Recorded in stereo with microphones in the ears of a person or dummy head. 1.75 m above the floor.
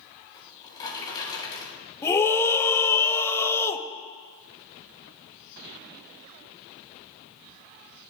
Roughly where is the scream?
Centre.